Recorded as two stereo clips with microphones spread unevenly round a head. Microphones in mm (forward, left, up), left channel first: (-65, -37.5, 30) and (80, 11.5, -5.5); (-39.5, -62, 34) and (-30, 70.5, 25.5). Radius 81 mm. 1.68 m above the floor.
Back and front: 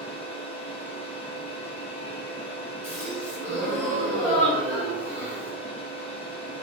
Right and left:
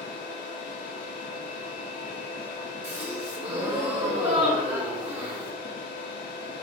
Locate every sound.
0.0 s a machine running: 110° right, 0.9 m
2.8 s a gasp: 125° left, 1.9 m